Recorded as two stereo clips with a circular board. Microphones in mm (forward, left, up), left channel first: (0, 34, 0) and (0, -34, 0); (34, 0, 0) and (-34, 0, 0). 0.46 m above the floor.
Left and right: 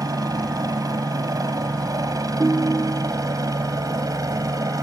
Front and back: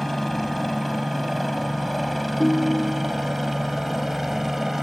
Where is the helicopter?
85° right; by 4.8 s 95° right.